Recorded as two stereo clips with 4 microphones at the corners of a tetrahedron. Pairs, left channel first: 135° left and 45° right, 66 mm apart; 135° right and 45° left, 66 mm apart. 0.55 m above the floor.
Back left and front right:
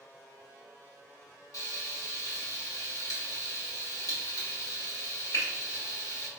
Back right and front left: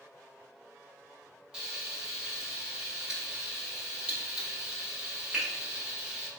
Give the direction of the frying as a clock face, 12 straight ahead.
8 o'clock.